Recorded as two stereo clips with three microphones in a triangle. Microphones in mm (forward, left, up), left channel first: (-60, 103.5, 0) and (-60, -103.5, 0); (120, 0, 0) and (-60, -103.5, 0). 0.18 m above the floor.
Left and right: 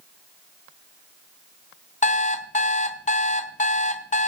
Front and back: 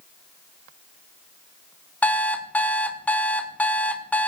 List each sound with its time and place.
2.0 s an alarm clock: 110° left, 0.9 m